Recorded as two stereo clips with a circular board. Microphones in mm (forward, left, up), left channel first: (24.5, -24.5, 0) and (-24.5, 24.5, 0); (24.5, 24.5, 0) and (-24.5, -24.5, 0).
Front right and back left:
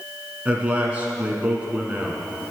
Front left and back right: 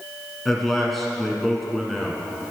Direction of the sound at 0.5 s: 125° left.